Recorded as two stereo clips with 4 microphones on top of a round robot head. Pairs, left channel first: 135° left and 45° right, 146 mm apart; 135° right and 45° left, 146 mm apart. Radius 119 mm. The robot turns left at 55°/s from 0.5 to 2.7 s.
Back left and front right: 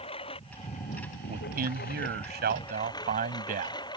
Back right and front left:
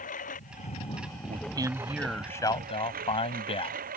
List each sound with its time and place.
0.0 s a lawn mower: 170° right; by 4.0 s 75° left
1.3 s a man speaking: 5° right; by 3.8 s 80° right